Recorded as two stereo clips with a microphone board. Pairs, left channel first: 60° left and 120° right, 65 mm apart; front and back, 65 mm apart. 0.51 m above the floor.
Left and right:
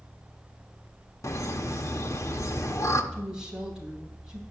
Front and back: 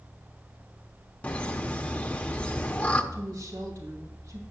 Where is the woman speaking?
165° left, 3 m.